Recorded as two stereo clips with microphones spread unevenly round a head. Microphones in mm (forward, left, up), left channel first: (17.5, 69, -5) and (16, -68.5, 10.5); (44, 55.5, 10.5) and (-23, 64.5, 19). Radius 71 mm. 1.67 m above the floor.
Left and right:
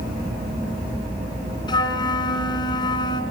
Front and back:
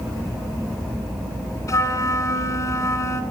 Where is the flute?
30° left, 3 m.